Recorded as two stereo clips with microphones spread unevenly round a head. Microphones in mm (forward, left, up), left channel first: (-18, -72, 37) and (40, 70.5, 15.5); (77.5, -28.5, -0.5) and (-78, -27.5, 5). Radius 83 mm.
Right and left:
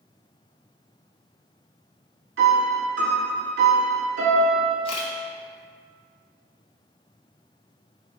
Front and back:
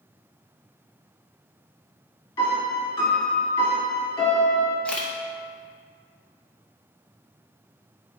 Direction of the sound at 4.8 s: 85° right.